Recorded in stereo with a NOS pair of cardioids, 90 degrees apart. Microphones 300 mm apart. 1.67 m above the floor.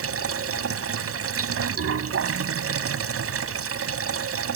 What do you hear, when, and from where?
0.0 s running water: 50° right